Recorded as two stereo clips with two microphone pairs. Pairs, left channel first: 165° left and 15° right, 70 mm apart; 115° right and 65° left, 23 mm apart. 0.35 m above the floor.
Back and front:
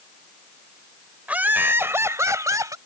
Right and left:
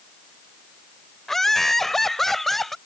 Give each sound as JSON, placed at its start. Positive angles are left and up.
{"t": 1.3, "sound": "laughter", "azimuth_deg": -60}